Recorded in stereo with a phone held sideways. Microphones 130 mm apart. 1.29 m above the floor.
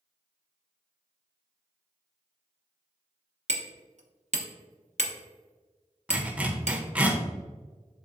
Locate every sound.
3.5 s hammering: 65° right (ahead or behind), 1.1 m
6.1 s a zipper: 10° right (ahead or behind), 1.0 m